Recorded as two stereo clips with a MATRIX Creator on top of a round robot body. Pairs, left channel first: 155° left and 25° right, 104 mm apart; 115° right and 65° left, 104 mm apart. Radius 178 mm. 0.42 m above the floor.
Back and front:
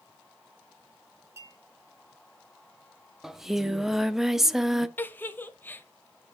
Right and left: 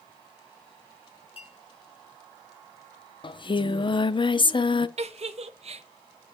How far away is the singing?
About 0.8 m.